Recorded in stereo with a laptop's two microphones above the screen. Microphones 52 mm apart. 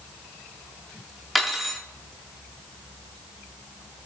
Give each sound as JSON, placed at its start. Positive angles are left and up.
{"t": 1.4, "sound": "cutlery clinking", "side_deg": 0, "distance_m": 1.0}